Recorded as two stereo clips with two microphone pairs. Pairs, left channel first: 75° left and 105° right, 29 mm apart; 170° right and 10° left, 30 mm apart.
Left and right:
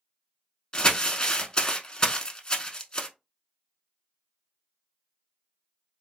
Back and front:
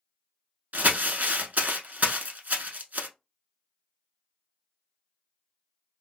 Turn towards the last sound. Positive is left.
turn(degrees=10)